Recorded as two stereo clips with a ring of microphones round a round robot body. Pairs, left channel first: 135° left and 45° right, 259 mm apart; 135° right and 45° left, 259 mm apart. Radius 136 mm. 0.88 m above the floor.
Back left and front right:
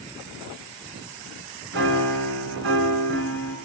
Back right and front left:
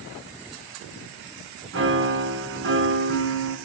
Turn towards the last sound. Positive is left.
turn(degrees=0)